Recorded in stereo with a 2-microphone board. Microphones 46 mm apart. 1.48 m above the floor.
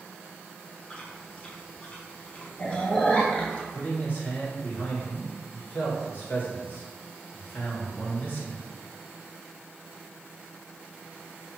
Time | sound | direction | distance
0.9 | chewing | 20° left (ahead or behind) | 0.7 m
3.7 | a man speaking | 40° left (ahead or behind) | 1.3 m